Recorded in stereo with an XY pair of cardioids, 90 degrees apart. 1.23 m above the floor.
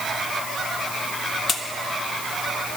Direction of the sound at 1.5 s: 55° left.